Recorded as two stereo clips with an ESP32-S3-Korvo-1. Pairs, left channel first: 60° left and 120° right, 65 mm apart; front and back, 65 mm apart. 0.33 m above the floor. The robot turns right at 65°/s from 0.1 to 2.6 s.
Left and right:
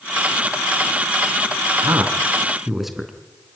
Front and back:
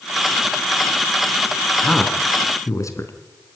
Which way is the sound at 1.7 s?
90° right.